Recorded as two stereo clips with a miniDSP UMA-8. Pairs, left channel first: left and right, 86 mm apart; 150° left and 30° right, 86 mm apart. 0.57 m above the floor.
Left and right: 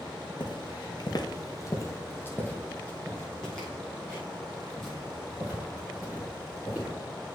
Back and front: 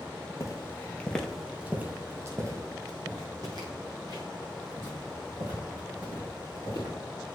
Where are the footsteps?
105° left, 1.0 m; by 6.9 s 5° right, 4.5 m.